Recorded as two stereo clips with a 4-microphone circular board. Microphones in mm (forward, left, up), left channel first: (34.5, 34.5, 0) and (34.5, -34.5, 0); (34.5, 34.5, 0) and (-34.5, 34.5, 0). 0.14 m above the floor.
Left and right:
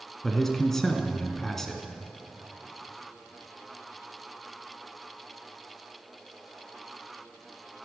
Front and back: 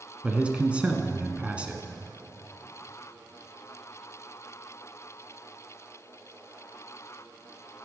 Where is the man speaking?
160° left, 1.4 m.